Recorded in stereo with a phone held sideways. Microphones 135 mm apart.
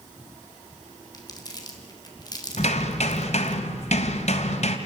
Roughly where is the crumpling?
Left.